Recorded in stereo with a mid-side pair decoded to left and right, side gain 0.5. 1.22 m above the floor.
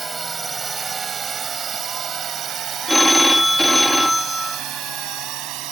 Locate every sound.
0.0 s a drone: 25° right; by 5.7 s 80° right
2.9 s a phone ringing: 5° left